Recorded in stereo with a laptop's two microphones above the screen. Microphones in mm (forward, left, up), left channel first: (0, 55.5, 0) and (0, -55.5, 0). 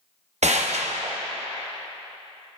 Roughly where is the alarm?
I don't hear an alarm.